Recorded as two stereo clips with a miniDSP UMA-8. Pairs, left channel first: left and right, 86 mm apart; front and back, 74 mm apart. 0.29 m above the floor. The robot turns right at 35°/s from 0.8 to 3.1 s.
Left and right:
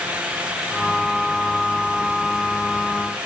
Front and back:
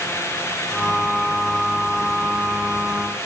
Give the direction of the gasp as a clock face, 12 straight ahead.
I don't hear a gasp.